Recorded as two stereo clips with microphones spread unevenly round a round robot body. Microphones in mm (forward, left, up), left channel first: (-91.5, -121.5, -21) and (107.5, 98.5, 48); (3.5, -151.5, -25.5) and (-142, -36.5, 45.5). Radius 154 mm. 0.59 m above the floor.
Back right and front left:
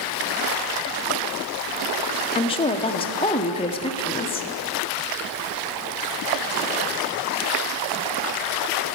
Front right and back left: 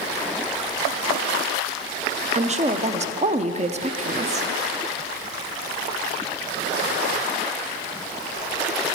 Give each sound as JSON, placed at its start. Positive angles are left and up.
{"t": 2.4, "sound": "a woman speaking", "azimuth_deg": -155, "distance_m": 0.6}